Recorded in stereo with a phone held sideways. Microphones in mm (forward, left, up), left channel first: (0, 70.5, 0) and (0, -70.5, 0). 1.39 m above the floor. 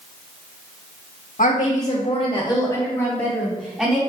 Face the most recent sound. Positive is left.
turn(degrees=-5)  # may be behind; listen again after turning